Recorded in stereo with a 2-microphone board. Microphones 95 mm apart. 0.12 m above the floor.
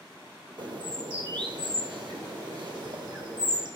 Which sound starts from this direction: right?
A bird, at 0.6 s.